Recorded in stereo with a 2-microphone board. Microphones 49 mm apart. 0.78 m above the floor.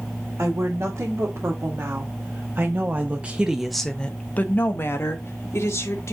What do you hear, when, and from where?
0.4 s a woman speaking: 75° right (ahead or behind), 2 m; by 6.1 s 65° left (ahead or behind), 1.6 m